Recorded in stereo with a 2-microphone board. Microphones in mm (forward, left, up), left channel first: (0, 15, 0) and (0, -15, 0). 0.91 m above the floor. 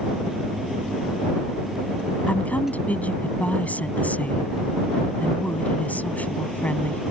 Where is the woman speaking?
60° left (ahead or behind).